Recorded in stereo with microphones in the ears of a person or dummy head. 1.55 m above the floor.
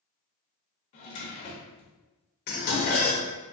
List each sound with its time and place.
0.9 s a drawer: 35° left (ahead or behind), 0.8 m
2.5 s dishes clattering: 45° left (ahead or behind), 0.8 m